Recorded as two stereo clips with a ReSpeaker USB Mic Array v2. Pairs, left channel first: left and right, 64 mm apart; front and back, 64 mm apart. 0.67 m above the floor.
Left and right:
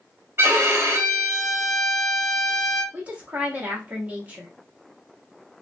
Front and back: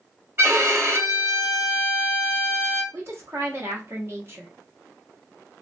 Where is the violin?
135° right, 0.9 m.